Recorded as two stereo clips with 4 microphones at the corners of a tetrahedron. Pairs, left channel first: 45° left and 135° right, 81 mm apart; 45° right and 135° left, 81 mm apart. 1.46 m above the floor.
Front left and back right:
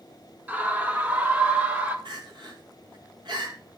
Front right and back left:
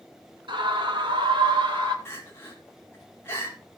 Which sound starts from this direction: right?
Crying, at 2.0 s.